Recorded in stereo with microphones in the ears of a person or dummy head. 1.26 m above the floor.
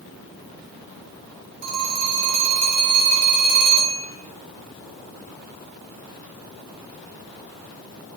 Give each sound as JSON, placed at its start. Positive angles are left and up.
{"t": 1.6, "sound": "a phone ringing", "side_deg": -55, "distance_m": 0.6}